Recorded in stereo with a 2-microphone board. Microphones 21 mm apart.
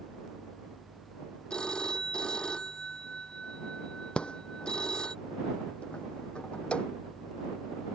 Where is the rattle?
60° left (ahead or behind).